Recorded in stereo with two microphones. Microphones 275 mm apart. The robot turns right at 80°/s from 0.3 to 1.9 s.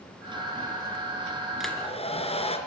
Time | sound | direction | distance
1.6 | a hair dryer | centre (ahead or behind) | 3 m